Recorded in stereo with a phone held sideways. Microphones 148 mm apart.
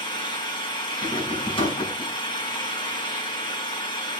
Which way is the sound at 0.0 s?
30° left (ahead or behind).